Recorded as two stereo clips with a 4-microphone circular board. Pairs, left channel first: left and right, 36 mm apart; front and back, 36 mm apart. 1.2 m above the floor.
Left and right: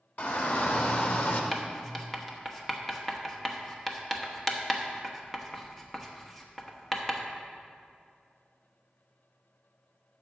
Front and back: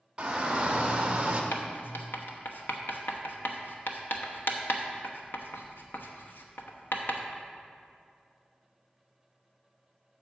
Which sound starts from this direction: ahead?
Writing, at 1.5 s.